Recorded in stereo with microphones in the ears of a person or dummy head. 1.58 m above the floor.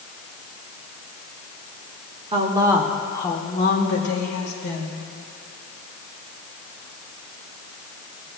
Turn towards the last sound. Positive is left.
turn(degrees=80)